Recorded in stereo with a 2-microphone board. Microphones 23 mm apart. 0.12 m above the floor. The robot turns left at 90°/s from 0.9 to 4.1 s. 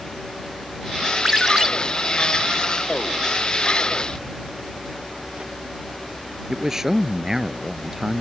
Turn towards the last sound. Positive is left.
turn(degrees=-15)  # may be behind; listen again after turning